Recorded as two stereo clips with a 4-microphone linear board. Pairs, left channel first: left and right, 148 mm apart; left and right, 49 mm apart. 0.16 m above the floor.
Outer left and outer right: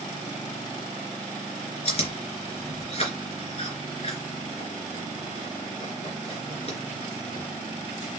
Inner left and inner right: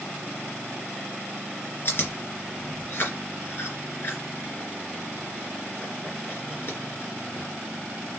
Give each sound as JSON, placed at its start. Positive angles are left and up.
{"t": 1.9, "sound": "chewing", "side_deg": 40, "distance_m": 3.0}